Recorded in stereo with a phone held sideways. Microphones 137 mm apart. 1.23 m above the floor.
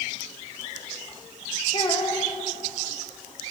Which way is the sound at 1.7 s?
35° left (ahead or behind).